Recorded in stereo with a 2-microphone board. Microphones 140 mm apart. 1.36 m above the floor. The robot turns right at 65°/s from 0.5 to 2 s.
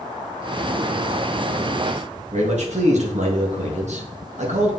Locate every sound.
2.3 s a man speaking: 60° right (ahead or behind), 1.9 m